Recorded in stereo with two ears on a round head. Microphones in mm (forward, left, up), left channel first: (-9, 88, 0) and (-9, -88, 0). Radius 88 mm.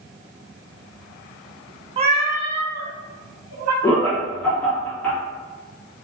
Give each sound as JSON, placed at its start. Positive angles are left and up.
{"t": 2.0, "sound": "a cat meowing", "side_deg": -30, "distance_m": 0.5}
{"t": 3.8, "sound": "laughter", "side_deg": 5, "distance_m": 1.2}